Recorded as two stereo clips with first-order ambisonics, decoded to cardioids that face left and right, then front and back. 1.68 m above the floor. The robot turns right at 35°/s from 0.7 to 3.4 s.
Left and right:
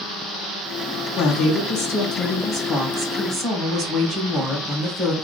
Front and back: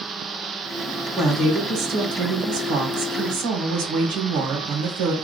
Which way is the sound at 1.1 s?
110° left.